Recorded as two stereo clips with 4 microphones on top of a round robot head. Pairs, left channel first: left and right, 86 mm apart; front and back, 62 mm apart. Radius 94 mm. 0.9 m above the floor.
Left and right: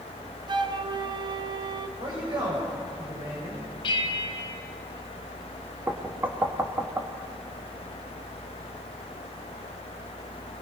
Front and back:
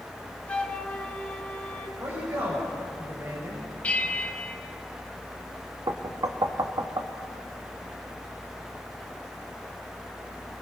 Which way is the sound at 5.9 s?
155° right.